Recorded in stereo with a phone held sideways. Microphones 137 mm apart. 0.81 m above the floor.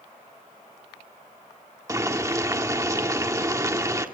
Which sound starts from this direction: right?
Boiling, at 1.9 s.